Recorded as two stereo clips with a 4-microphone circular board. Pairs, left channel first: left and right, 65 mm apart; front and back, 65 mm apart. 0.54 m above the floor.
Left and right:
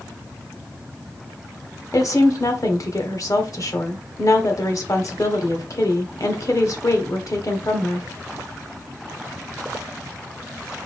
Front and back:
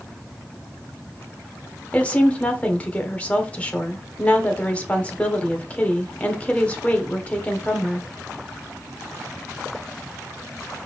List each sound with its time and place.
1.9 s a woman speaking: 70° left, 1.2 m